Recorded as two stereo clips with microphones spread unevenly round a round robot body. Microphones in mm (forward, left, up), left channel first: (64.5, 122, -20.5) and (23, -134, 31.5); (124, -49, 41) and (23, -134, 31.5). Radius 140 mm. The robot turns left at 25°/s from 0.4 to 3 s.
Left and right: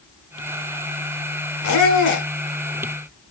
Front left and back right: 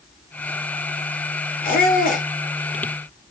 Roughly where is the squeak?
Ahead left.